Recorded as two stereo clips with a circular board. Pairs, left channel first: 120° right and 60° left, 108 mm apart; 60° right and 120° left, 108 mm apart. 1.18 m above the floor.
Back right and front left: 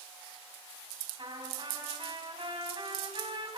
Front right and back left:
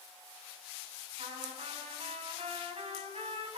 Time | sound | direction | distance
1.2 | a trumpet | 100° left | 10 m